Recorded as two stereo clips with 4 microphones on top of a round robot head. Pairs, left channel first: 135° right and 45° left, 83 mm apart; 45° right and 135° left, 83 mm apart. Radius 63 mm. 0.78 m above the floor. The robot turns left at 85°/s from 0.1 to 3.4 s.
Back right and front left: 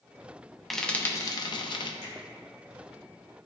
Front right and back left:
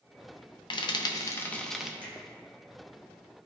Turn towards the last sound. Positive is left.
turn(degrees=125)